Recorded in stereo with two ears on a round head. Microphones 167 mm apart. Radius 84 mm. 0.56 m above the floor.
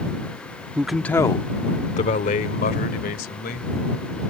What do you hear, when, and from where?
0.8 s a man speaking: 10° right (ahead or behind); by 3.7 s 55° left (ahead or behind)